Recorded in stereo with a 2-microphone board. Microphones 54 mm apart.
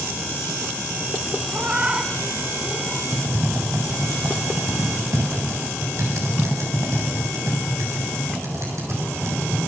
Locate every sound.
1.5 s a cat meowing: 25° right (ahead or behind), 2.0 m; by 3.0 s 5° left (ahead or behind), 1.0 m
3.1 s typing on a keyboard: 70° right (ahead or behind), 8 m